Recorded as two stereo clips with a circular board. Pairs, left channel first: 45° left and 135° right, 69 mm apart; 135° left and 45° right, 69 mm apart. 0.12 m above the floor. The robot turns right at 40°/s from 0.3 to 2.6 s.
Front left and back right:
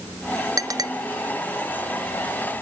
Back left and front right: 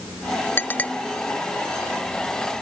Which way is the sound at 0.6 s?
170° right.